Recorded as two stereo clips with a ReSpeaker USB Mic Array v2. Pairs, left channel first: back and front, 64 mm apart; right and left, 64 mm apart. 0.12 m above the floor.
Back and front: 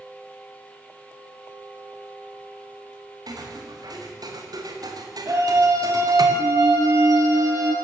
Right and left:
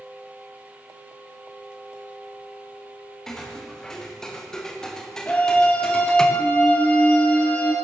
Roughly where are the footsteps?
Ahead.